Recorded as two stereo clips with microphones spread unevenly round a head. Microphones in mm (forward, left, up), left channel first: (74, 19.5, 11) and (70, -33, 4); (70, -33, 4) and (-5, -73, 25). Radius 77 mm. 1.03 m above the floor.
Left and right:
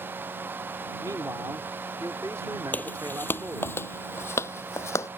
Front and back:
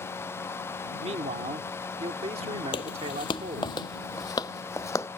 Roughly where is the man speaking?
Behind right.